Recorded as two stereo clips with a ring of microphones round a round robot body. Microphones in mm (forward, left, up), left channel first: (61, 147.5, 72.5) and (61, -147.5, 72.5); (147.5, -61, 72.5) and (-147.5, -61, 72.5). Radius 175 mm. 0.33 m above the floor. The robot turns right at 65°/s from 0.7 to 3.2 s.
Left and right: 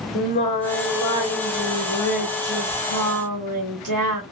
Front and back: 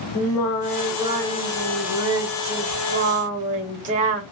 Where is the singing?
80° left, 1.2 m; by 4.2 s 115° right, 1.2 m.